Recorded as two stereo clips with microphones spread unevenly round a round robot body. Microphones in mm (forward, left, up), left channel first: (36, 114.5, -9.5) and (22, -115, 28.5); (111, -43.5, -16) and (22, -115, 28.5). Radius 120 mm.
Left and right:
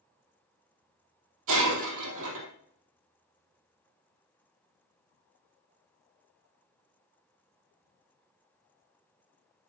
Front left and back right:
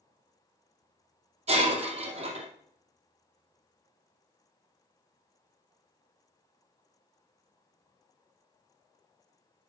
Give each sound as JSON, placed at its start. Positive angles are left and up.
{"t": 1.5, "sound": "breaking glass", "azimuth_deg": -130, "distance_m": 3.0}